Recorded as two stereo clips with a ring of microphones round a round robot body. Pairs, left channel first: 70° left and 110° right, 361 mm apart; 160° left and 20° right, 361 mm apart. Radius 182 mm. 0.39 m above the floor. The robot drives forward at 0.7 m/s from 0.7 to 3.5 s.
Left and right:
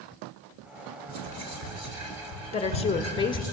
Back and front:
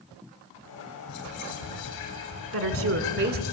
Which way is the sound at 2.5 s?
Straight ahead.